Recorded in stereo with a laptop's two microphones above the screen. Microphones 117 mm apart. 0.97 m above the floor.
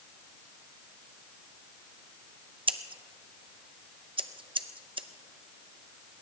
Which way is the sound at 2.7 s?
45° right (ahead or behind).